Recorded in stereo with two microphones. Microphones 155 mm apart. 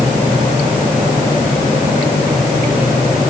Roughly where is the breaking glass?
I don't hear breaking glass.